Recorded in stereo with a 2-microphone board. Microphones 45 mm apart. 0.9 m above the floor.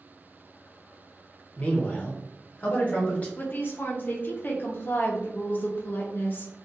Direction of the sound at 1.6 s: 25° left (ahead or behind).